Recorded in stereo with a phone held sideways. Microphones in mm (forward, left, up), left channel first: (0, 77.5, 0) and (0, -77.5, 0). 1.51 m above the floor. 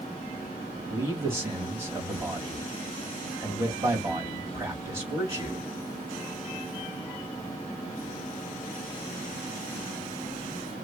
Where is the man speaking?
20° right (ahead or behind), 3 m.